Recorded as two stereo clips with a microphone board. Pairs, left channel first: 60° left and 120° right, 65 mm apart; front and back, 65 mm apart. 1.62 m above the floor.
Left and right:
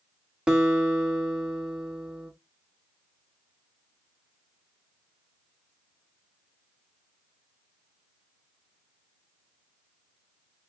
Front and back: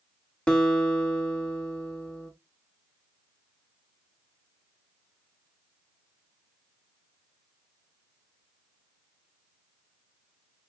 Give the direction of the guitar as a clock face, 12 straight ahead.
2 o'clock.